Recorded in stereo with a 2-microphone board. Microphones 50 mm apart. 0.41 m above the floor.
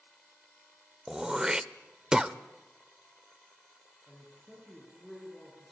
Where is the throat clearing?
15° right (ahead or behind), 0.6 m.